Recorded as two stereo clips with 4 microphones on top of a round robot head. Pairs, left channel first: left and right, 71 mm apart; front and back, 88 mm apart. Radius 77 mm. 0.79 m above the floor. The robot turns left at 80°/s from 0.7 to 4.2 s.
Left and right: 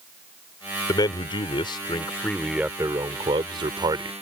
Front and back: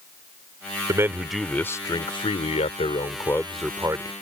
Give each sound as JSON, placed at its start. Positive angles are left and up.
{"t": 0.9, "sound": "a man speaking", "azimuth_deg": 125}